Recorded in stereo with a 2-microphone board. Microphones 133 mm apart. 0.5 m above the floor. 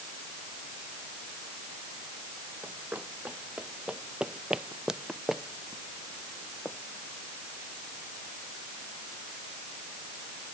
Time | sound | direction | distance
2.6 | running footsteps | 15° right (ahead or behind) | ?